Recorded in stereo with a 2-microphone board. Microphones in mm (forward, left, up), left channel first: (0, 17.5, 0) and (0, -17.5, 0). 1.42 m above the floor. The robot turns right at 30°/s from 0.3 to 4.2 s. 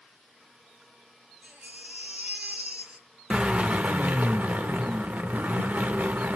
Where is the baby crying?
80° right, 1.1 m; by 3.1 s 30° right, 1.1 m.